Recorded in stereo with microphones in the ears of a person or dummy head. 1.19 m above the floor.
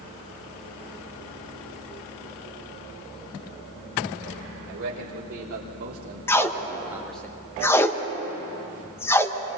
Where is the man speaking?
60° right (ahead or behind), 3.5 m; by 7.3 s 10° left (ahead or behind), 1.3 m.